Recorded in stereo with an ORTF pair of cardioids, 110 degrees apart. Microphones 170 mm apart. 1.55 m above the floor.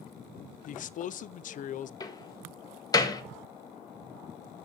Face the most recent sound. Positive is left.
turn(degrees=25)